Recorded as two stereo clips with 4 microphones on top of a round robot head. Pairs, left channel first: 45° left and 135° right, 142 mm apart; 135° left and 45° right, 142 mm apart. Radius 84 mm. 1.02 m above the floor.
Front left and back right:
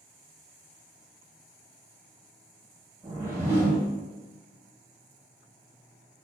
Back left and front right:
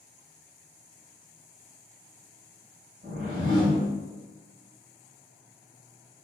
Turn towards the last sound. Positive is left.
turn(degrees=-65)